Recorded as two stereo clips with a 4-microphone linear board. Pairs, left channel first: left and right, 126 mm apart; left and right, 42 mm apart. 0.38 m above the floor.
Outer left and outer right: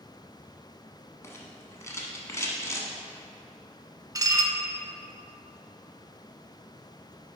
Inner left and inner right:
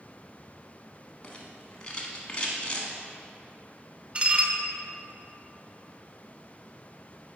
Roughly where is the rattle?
Left.